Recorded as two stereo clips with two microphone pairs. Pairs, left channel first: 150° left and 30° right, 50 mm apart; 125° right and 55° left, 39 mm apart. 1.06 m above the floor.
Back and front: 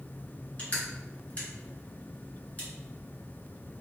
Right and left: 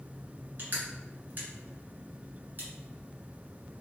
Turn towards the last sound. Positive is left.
turn(degrees=90)